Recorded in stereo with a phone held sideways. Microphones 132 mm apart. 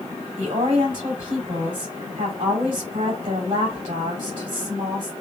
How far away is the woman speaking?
About 2.5 m.